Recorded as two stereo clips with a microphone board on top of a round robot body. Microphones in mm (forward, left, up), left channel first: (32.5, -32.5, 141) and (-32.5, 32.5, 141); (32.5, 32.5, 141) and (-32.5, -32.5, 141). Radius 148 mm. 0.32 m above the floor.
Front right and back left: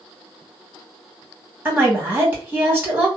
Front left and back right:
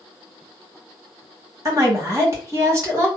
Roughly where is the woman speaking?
Behind.